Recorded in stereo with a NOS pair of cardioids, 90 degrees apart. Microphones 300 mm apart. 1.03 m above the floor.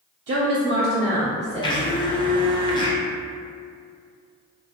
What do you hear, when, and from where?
0.3 s a woman speaking: 55° right, 0.7 m; by 2.2 s 10° left, 1.1 m
1.6 s a blender: 15° left, 0.6 m